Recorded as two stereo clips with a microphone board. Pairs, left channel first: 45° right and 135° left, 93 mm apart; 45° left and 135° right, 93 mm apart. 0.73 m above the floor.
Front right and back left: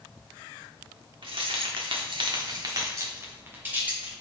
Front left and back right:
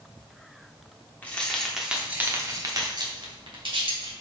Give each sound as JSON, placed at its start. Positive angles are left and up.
{"t": 1.2, "sound": "keys jangling", "azimuth_deg": 120, "distance_m": 1.5}